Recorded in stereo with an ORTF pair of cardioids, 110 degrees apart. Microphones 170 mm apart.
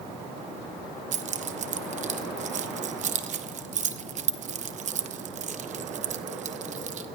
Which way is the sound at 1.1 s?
45° right.